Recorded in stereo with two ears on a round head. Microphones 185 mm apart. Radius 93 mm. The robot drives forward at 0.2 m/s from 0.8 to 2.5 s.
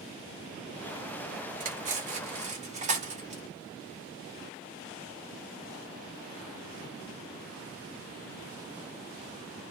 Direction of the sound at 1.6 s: 40° right (ahead or behind).